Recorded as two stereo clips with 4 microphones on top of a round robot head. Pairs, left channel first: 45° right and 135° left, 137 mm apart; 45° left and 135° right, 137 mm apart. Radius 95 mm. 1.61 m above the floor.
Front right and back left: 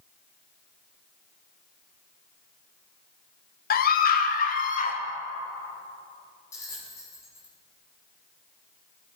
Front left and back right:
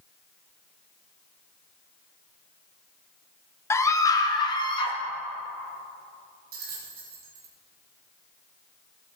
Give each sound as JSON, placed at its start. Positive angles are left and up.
{"t": 3.7, "sound": "a scream", "azimuth_deg": -30, "distance_m": 1.0}
{"t": 6.5, "sound": "a bell", "azimuth_deg": -115, "distance_m": 2.0}